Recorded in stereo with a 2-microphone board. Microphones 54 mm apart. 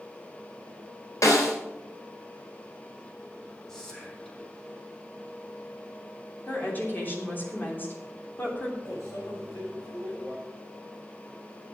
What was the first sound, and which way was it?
A snare drum, 80° left.